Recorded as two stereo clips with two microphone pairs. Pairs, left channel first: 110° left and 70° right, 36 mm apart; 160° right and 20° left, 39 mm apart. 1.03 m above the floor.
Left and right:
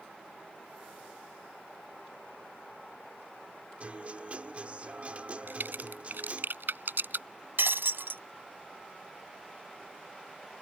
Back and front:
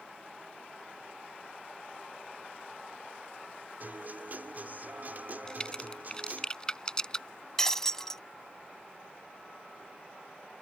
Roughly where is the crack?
Right.